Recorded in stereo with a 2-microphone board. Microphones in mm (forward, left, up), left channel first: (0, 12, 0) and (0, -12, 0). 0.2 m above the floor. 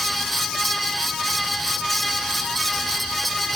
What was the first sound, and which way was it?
Only background noise.